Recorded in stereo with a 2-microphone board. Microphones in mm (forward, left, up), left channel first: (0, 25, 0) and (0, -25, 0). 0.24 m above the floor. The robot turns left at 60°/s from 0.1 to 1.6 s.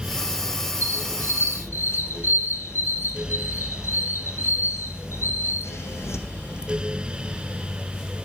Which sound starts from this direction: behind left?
A squeak, at 0.8 s.